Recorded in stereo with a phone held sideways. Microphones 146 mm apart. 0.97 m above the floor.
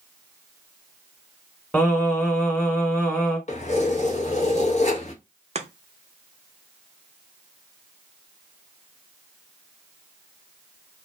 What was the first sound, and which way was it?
Singing, 15° left (ahead or behind).